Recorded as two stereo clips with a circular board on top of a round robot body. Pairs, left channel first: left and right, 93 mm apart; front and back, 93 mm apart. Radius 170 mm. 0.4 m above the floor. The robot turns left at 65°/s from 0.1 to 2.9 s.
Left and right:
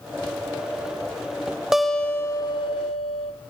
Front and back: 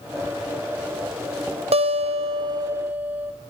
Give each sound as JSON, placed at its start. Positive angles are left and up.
{"t": 1.7, "sound": "a guitar", "azimuth_deg": -175, "distance_m": 0.8}